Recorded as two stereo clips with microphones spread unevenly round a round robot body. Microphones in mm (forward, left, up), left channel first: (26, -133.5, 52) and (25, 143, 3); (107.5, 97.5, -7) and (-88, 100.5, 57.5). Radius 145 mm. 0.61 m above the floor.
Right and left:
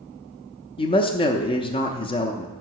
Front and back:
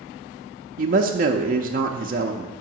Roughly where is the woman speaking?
Behind.